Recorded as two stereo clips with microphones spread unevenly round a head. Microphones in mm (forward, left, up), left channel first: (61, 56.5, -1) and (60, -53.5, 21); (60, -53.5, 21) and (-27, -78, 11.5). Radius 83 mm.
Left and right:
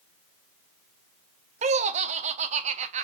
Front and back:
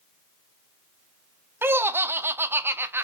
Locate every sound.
1.6 s laughter: 95° right, 0.6 m